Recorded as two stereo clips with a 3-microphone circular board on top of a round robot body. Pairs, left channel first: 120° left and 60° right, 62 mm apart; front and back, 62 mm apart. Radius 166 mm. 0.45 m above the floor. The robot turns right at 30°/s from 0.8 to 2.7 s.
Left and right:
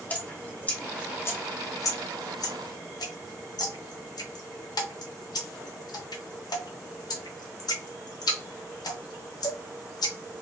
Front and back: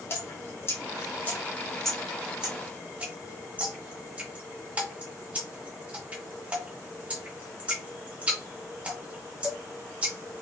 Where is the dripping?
55° left, 0.6 m; by 10.4 s 110° left, 0.6 m.